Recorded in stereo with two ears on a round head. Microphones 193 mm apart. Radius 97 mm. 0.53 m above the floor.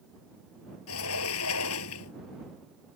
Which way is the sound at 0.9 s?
75° left (ahead or behind).